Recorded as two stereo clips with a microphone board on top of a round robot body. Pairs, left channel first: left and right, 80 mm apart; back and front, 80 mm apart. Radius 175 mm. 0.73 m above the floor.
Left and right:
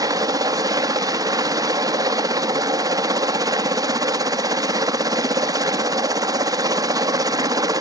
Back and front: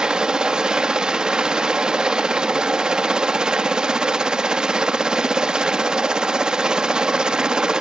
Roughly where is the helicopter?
Right.